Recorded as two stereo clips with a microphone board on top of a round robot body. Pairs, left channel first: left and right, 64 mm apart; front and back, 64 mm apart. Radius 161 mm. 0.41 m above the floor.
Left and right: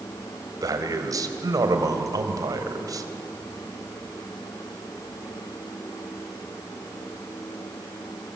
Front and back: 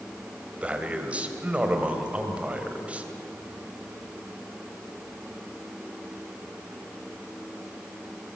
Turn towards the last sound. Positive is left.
turn(degrees=-110)